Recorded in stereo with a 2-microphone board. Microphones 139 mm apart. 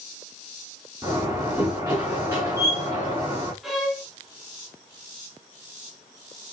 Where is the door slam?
15° right (ahead or behind), 7 m.